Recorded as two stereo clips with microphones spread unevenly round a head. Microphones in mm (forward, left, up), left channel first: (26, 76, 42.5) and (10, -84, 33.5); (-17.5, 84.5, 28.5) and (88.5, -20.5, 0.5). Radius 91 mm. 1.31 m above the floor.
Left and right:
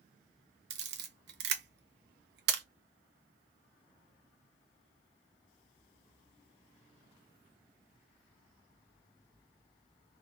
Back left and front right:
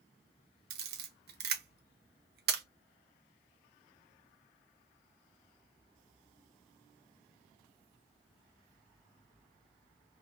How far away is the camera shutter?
About 0.8 m.